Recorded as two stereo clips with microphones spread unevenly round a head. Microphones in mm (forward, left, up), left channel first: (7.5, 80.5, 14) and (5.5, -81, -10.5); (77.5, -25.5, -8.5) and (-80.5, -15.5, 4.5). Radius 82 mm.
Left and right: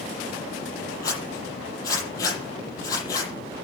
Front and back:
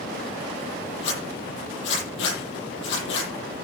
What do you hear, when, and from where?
1.0 s a zipper: 20° left, 9.5 m